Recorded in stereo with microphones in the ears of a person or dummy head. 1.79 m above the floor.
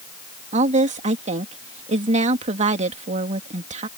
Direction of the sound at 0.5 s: 35° right (ahead or behind).